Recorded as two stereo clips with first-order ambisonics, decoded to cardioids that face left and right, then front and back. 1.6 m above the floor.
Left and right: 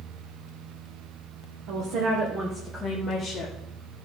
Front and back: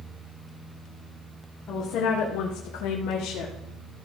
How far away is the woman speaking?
About 1.5 m.